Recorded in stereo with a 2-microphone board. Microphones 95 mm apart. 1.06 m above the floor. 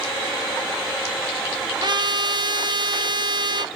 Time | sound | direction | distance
1.8 | a trumpet | 50° right (ahead or behind) | 0.5 m